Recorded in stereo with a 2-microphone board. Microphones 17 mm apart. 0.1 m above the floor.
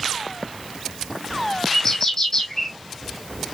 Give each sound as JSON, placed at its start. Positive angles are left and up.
{"t": 1.7, "sound": "a bird", "side_deg": 45, "distance_m": 2.0}